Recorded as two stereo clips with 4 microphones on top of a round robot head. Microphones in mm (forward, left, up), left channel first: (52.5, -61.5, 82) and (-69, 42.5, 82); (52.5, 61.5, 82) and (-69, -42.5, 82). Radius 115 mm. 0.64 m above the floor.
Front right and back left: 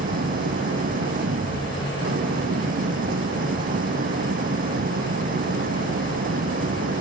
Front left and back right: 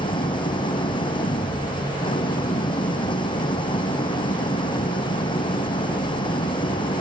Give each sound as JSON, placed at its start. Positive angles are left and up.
{"t": 0.0, "sound": "an engine running", "azimuth_deg": 100}